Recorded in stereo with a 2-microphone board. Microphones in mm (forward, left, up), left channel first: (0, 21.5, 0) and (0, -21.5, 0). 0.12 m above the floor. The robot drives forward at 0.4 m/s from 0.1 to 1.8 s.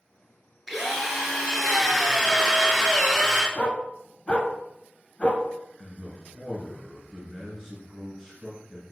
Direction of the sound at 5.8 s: 10° right (ahead or behind).